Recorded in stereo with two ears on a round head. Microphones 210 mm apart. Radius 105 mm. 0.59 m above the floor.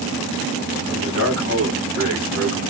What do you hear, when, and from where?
0.9 s a man speaking: 60° left (ahead or behind), 3.5 m